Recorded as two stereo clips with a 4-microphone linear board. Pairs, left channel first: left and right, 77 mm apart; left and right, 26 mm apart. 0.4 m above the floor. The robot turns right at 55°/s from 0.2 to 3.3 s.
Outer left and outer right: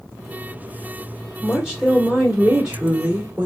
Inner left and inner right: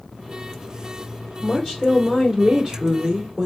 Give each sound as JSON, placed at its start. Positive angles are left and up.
{"t": 1.4, "sound": "a woman speaking", "side_deg": 5, "distance_m": 1.0}